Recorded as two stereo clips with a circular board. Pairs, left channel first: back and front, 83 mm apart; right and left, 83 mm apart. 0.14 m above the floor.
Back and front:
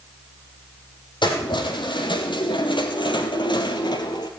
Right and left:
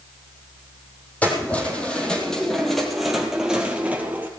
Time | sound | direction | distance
1.2 | keys jangling | 165° right | 3 m